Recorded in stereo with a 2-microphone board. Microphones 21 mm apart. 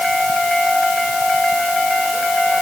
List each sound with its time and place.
Only background noise.